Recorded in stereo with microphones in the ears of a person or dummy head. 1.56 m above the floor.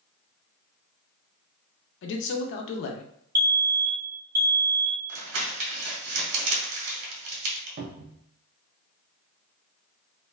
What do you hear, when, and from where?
2.0 s a man speaking: 60° left (ahead or behind), 0.6 m
3.4 s a fire alarm: 15° right (ahead or behind), 0.6 m
5.1 s crumpling: 80° right, 1.2 m
7.8 s a cupboard door: 60° right (ahead or behind), 0.5 m